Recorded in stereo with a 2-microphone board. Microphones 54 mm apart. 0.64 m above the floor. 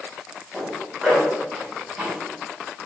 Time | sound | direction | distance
0.5 | a zipper | 10° right (ahead or behind) | 4.5 m